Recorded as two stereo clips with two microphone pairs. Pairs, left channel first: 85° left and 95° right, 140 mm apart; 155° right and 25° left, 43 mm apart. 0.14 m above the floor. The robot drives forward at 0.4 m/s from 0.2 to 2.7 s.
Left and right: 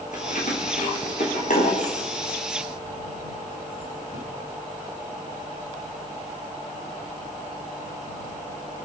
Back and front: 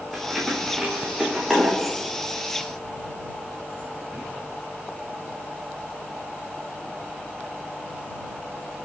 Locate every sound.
0.1 s keys jangling: 110° left, 7 m; by 4.2 s 115° left, 7.5 m